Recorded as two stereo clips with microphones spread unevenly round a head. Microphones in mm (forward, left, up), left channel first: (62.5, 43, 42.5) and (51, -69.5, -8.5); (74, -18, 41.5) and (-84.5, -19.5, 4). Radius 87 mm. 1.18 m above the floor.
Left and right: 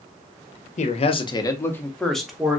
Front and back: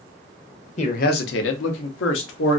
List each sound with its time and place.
0.8 s a man speaking: 55° left, 0.7 m; by 2.6 s 15° right, 1.3 m